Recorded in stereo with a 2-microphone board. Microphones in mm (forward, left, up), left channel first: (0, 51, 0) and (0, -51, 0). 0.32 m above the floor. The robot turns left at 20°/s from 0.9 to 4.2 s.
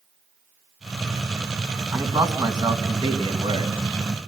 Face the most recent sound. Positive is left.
turn(degrees=-65)  # may be behind; listen again after turning